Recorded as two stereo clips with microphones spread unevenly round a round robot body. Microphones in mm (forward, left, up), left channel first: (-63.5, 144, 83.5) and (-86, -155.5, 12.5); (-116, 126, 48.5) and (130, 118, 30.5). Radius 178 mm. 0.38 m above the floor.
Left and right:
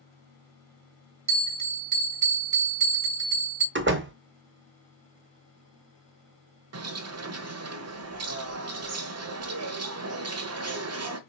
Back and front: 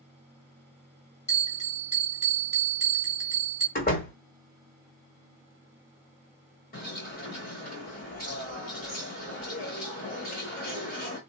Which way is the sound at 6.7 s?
120° right.